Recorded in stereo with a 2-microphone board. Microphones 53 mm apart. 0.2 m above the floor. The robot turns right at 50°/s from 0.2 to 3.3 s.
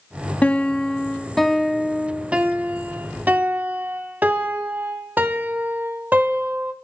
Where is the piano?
125° left, 0.8 m; by 6.7 s 90° right, 0.8 m.